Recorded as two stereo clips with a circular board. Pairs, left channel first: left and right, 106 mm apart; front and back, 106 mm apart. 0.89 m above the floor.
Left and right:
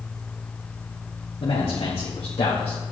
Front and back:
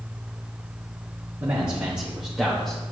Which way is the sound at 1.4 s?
115° left.